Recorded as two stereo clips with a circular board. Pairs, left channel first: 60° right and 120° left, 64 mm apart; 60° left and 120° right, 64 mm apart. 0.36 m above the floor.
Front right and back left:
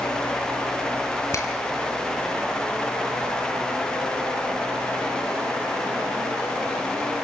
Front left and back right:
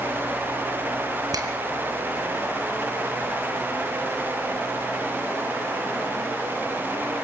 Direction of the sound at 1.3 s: 100° right.